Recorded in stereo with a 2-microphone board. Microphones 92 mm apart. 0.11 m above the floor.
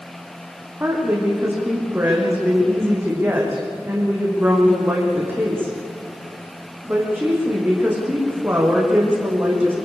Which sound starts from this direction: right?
A woman speaking, at 0.8 s.